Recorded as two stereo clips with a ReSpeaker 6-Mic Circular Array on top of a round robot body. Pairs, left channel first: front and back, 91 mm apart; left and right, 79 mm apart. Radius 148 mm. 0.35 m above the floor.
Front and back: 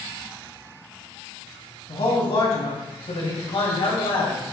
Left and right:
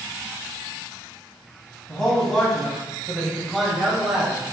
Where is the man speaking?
5° left, 3 m; by 4.4 s 10° right, 1.9 m.